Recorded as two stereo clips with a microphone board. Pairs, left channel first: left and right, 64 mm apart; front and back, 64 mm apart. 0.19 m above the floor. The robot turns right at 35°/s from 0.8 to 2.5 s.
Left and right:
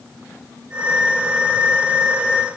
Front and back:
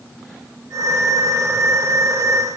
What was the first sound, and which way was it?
Only background noise.